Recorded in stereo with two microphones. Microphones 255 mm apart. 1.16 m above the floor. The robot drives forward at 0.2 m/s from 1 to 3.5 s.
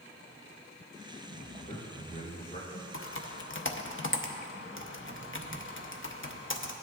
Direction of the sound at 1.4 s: 35° left (ahead or behind).